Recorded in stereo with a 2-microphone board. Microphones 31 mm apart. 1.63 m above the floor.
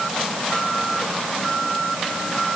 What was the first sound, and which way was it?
Only background noise.